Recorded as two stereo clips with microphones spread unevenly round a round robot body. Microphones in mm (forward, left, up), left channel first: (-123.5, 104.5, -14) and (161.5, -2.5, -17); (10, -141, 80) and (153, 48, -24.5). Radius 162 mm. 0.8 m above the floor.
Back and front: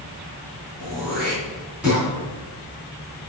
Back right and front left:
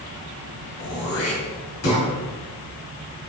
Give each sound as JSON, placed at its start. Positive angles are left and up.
{"t": 0.8, "sound": "throat clearing", "azimuth_deg": -105, "distance_m": 3.0}